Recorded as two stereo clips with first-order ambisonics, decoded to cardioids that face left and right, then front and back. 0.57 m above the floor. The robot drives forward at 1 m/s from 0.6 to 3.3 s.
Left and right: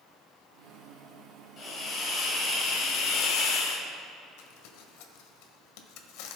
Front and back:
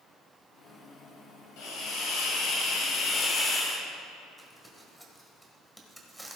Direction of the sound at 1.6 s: 25° left.